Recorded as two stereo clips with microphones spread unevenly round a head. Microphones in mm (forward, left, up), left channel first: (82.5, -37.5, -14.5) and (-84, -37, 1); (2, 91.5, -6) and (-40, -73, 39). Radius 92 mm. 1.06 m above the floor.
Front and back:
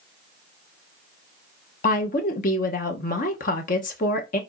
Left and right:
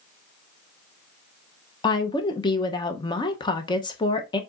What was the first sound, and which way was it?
A woman speaking, 30° left.